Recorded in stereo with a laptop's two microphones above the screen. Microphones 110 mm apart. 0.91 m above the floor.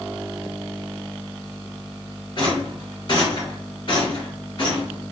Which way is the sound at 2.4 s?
45° left (ahead or behind).